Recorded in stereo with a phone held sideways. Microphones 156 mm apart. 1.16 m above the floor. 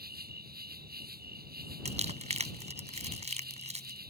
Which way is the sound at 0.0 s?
85° right.